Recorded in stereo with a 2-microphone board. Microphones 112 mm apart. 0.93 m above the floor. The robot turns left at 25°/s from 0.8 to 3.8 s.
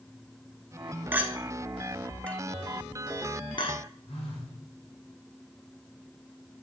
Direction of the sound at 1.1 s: 15° right (ahead or behind).